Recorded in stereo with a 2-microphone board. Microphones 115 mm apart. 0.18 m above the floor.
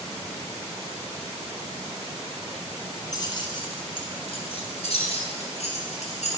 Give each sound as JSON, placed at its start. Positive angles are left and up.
{"t": 3.1, "sound": "keys jangling", "side_deg": 35, "distance_m": 1.5}